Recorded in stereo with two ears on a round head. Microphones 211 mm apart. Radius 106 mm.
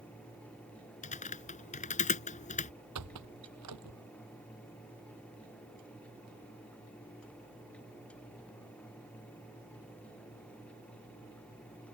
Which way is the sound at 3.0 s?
90° right.